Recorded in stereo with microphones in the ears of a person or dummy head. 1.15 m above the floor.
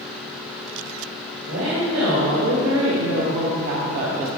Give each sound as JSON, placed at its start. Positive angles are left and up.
{"t": 1.5, "sound": "a woman speaking", "side_deg": -80, "distance_m": 1.9}